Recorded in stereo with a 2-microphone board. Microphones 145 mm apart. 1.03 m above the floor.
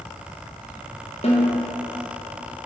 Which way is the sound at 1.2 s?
45° left (ahead or behind).